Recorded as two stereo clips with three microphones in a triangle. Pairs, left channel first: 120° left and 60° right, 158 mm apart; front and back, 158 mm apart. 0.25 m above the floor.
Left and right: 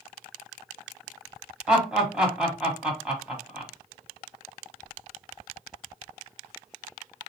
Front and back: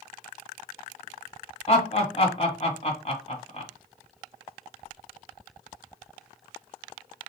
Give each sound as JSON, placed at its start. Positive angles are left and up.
{"t": 1.7, "sound": "laughter", "azimuth_deg": 20, "distance_m": 1.3}